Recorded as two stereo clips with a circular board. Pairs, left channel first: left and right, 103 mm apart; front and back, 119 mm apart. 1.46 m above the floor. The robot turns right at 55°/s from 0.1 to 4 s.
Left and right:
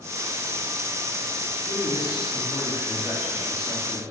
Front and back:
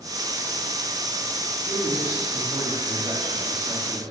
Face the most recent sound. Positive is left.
turn(degrees=-125)